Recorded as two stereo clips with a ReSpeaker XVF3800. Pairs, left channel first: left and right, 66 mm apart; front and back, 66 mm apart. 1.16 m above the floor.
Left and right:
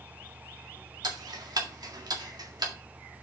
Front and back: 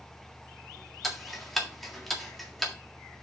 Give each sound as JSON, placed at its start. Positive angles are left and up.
{"t": 1.0, "sound": "ticking", "azimuth_deg": -90, "distance_m": 1.8}